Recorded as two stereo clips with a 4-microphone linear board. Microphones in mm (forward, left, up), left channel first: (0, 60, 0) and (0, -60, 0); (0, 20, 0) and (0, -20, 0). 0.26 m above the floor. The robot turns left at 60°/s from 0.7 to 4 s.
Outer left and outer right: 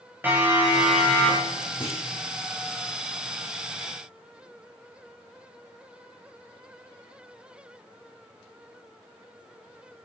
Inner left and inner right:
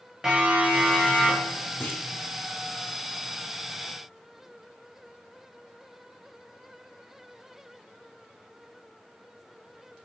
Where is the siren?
15° right (ahead or behind), 8 m; by 1.6 s 35° left (ahead or behind), 6.5 m.